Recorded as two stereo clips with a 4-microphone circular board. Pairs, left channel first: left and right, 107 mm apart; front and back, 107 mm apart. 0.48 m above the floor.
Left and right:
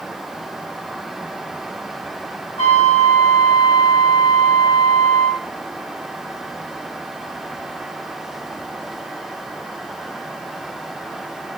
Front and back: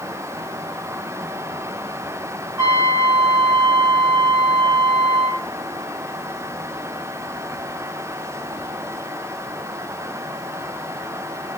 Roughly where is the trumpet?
Behind left.